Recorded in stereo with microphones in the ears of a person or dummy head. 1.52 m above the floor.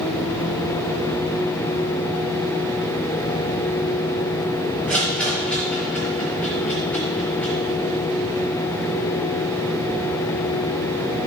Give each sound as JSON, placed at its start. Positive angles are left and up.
{"t": 4.9, "sound": "a rattle", "side_deg": 10, "distance_m": 1.7}